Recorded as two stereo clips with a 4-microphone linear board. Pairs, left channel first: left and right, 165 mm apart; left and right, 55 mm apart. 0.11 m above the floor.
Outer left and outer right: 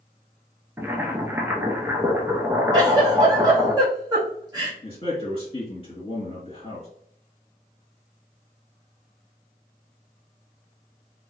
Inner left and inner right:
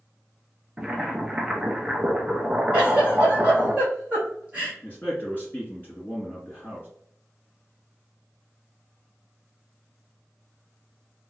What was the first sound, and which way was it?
Boiling, 15° right (ahead or behind).